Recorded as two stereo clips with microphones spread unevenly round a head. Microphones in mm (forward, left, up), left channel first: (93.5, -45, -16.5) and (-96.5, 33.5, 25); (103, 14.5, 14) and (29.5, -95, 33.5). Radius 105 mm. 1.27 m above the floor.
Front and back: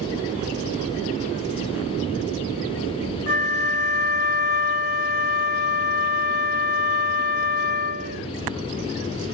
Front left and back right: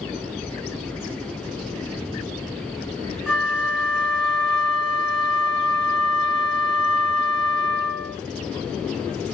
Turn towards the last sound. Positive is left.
turn(degrees=-35)